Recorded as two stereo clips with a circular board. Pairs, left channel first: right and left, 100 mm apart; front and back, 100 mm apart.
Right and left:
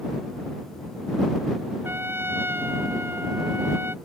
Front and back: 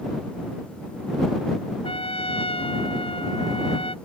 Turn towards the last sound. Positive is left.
turn(degrees=20)